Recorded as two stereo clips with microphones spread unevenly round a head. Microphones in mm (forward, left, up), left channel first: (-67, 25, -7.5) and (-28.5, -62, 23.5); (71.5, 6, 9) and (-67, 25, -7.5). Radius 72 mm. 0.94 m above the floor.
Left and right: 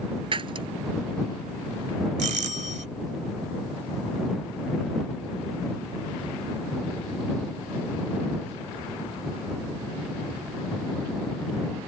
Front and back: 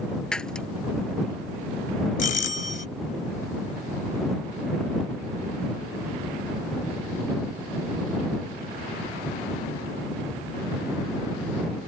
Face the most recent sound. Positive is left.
turn(degrees=-45)